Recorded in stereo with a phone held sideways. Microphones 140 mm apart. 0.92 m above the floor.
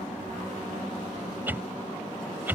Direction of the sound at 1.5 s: 15° right (ahead or behind).